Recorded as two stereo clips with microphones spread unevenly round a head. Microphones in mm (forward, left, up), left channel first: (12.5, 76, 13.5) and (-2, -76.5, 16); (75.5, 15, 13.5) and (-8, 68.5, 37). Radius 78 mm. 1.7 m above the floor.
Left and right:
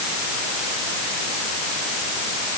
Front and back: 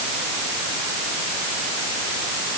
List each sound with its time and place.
Only background noise.